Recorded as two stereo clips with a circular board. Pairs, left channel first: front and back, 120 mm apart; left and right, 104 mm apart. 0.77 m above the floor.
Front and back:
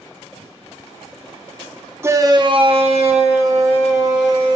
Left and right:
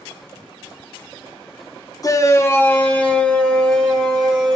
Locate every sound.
2.0 s a shout: 120° left, 0.7 m; by 4.6 s 175° left, 2.0 m